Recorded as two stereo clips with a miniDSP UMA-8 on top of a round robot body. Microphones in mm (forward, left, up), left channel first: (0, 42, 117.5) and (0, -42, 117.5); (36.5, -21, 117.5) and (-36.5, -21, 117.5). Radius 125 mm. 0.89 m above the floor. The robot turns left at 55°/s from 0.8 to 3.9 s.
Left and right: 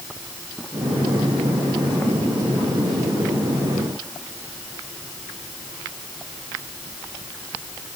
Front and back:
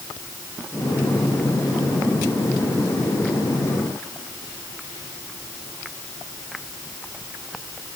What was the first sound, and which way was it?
Only background noise.